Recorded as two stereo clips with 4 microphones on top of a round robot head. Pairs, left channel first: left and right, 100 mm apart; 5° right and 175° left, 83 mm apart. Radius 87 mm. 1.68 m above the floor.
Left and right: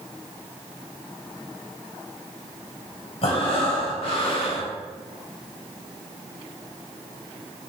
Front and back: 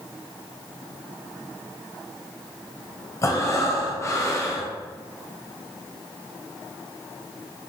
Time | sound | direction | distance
3.2 | breathing | 50° left | 1.5 m